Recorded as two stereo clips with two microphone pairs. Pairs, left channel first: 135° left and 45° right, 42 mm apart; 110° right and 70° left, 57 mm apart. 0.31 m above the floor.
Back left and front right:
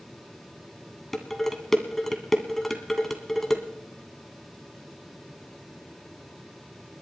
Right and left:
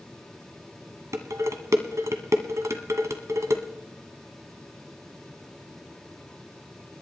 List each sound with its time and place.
1.1 s dishes clattering: 60° left, 1.6 m